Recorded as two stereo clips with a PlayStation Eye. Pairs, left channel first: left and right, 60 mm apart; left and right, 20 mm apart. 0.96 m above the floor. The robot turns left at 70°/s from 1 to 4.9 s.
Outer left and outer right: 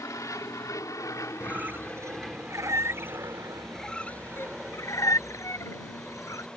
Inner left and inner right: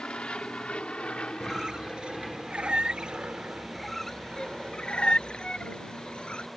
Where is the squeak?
15° right (ahead or behind); by 6.5 s 60° left (ahead or behind).